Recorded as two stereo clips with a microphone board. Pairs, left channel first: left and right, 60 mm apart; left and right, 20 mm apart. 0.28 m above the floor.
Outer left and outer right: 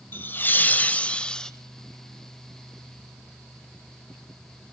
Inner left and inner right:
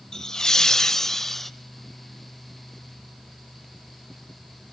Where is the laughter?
35° left (ahead or behind), 1.3 m; by 1.5 s 10° left (ahead or behind), 1.2 m.